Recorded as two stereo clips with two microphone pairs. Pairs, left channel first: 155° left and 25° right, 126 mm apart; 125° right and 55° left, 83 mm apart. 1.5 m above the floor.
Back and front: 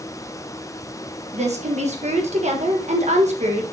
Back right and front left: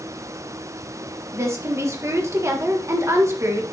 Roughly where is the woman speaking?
Ahead.